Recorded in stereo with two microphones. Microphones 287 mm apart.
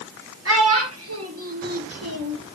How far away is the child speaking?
About 4 m.